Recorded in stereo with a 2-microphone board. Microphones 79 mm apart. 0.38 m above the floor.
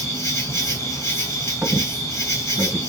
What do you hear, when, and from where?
0.0 s an insect: 40° left (ahead or behind), 1.3 m
1.6 s a squeak: 20° right (ahead or behind), 1.5 m